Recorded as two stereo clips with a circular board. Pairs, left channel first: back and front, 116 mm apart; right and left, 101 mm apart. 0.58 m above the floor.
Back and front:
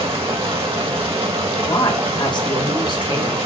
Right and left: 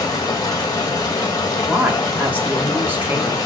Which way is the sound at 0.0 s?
40° right.